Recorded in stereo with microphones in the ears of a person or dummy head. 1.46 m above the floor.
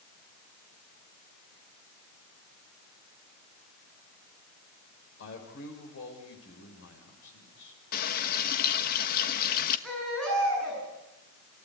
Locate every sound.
5.2 s a man speaking: 70° left (ahead or behind), 7 m
7.9 s a running tap: 55° left (ahead or behind), 1.3 m
9.8 s a baby crying: 5° left (ahead or behind), 9.5 m